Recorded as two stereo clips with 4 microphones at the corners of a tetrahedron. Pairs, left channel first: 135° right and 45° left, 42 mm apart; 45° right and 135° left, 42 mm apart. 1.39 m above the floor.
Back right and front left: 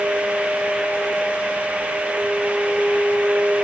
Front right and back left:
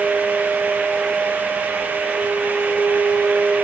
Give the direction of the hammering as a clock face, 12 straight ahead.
I don't hear hammering.